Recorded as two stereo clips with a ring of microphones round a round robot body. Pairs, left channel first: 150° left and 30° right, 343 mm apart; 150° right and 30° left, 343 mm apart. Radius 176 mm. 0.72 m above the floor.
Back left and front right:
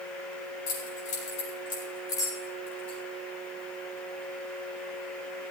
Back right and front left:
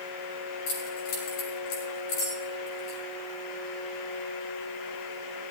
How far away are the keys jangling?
About 7.5 m.